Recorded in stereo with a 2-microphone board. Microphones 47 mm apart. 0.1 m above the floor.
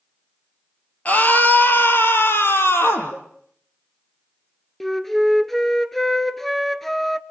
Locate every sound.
1.1 s a scream: 35° left (ahead or behind), 2.5 m; by 3.1 s 65° left (ahead or behind), 4 m
3.1 s a cowbell: 70° left (ahead or behind), 3.5 m
4.8 s a flute: 5° left (ahead or behind), 0.9 m